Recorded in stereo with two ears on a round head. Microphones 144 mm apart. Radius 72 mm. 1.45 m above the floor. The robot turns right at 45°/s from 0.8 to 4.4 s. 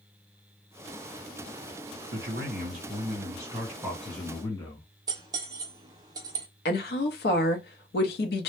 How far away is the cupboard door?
I don't hear a cupboard door.